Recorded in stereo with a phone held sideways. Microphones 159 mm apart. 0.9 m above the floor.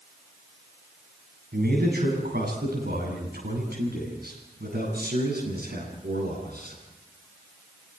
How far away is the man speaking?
About 8.5 m.